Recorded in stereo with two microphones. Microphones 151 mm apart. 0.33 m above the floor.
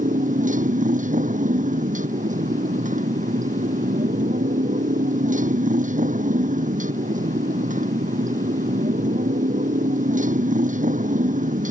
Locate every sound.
0.0 s a motorcycle: 60° right (ahead or behind)